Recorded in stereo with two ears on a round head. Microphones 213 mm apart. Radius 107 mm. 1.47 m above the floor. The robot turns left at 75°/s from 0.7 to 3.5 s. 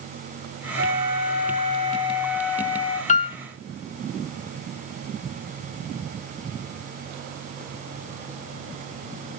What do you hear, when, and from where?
0.8 s a flute: 55° right, 2 m; by 3.0 s 135° left, 2 m
3.1 s a piano: 30° left (ahead or behind), 0.5 m; by 3.4 s 25° left (ahead or behind), 0.5 m